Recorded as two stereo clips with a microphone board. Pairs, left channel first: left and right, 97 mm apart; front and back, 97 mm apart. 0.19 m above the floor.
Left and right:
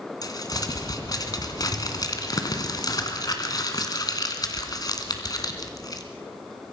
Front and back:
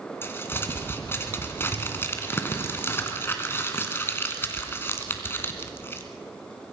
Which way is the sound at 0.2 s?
60° left.